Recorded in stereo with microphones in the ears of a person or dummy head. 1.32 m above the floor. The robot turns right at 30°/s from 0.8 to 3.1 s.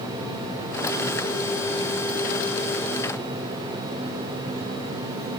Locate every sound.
Only background noise.